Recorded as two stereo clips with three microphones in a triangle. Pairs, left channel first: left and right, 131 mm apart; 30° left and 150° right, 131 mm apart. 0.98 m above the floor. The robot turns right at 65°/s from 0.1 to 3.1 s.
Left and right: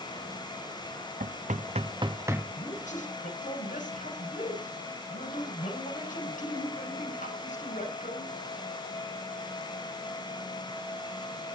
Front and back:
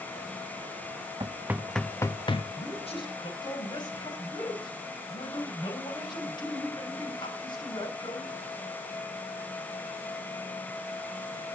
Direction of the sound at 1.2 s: 95° right.